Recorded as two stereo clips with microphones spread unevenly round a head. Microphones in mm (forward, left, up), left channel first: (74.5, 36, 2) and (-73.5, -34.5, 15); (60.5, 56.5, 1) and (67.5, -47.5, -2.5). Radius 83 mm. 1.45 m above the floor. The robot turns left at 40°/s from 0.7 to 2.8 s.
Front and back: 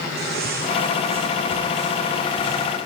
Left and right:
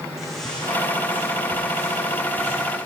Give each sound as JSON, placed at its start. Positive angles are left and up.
{"t": 0.2, "sound": "footsteps", "azimuth_deg": -175, "distance_m": 3.5}